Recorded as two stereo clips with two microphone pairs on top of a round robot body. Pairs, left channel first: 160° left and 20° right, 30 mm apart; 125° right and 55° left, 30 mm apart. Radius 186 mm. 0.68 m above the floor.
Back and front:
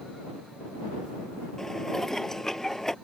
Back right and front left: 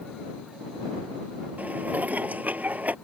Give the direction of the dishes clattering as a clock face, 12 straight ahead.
9 o'clock.